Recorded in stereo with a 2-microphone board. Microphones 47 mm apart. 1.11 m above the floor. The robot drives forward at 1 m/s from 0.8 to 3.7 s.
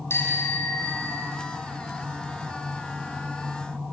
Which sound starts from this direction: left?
A bicycle bell, at 0.1 s.